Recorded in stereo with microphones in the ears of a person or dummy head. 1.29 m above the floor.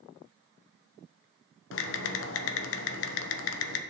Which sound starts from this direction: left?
Typing on a keyboard, at 1.7 s.